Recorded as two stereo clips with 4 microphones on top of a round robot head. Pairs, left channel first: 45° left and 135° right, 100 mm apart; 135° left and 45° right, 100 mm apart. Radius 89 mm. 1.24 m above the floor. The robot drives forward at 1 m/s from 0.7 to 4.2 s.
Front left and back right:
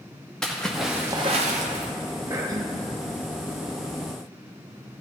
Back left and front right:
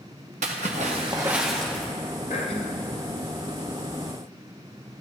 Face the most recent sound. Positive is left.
turn(degrees=175)